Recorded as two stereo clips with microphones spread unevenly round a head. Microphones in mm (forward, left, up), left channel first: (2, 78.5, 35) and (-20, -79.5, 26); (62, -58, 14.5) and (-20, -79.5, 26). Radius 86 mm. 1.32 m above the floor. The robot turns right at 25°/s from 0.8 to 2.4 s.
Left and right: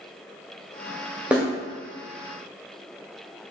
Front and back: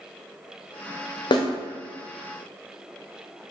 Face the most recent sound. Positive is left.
turn(degrees=15)